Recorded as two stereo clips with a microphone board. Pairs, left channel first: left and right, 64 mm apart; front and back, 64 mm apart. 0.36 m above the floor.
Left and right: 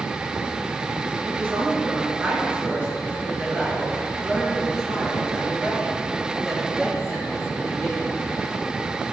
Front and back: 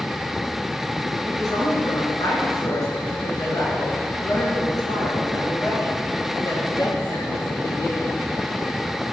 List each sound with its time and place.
1.2 s a woman speaking: 35° right, 4 m; by 8.2 s straight ahead, 7.5 m